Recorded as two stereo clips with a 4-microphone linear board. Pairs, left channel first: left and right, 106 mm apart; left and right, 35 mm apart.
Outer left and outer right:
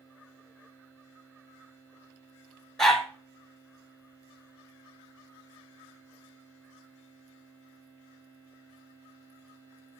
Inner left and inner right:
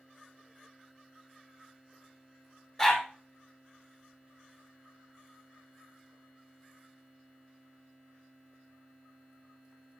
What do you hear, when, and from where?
2.8 s a dog barking: 5° left (ahead or behind), 3 m